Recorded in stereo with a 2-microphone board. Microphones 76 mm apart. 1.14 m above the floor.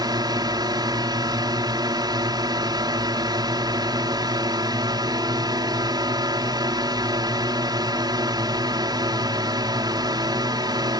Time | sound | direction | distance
0.0 | a drone | 75° right (ahead or behind) | ?